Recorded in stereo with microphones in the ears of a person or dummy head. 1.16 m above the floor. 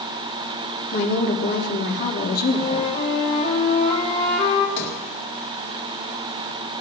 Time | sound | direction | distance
0.9 | a woman speaking | 60° left (ahead or behind) | 2.5 m
2.5 | a flute | 45° left (ahead or behind) | 2 m
4.8 | a sliding door | 40° left (ahead or behind) | 2 m